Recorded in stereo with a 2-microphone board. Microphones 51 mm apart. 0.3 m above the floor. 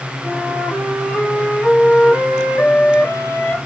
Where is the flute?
25° left (ahead or behind), 1.5 m.